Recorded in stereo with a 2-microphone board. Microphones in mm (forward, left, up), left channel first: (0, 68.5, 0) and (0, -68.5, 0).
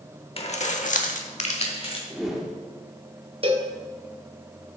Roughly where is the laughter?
I don't hear laughter.